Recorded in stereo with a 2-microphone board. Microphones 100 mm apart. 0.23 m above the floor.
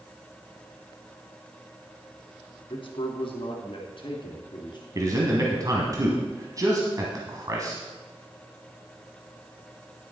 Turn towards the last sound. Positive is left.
turn(degrees=-35)  # may be behind; listen again after turning